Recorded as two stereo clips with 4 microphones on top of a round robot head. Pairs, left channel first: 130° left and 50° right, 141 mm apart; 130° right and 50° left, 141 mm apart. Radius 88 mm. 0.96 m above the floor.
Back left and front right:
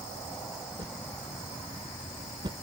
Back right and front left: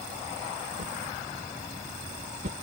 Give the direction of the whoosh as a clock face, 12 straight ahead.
12 o'clock.